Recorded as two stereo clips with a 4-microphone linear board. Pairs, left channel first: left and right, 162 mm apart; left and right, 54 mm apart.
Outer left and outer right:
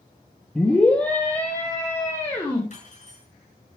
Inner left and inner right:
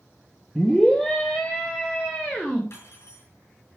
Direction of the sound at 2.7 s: 50° left (ahead or behind).